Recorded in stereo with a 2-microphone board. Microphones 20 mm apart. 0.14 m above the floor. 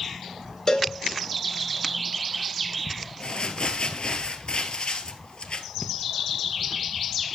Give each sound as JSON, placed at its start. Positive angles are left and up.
{"t": 0.7, "sound": "a cowbell", "side_deg": 35, "distance_m": 1.5}
{"t": 3.2, "sound": "crumpling", "side_deg": 50, "distance_m": 1.1}